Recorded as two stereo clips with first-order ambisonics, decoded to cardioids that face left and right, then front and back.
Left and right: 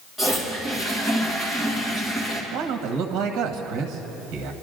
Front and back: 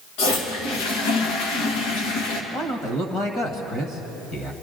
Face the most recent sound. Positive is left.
turn(degrees=-55)